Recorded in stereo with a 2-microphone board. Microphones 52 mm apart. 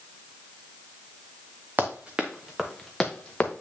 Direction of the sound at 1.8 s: 35° right (ahead or behind).